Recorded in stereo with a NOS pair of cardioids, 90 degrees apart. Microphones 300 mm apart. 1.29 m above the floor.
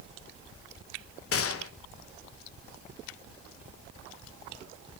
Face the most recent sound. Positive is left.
turn(degrees=50)